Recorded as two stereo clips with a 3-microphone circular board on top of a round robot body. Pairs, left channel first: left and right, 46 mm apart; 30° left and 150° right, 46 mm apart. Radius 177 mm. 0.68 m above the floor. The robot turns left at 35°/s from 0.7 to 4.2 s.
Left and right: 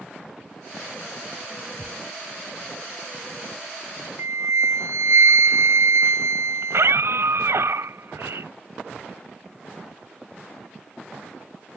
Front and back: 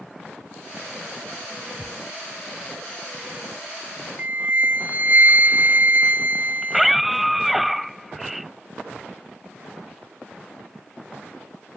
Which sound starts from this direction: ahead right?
A scream, at 6.6 s.